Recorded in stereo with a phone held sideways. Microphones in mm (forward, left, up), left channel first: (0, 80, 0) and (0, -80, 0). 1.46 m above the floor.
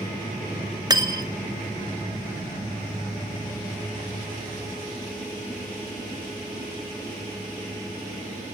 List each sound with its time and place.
0.9 s cutlery clinking: 25° right (ahead or behind), 0.6 m